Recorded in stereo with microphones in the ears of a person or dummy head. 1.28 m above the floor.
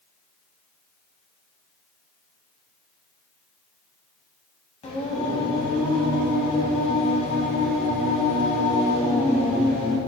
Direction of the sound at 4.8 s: 30° left (ahead or behind).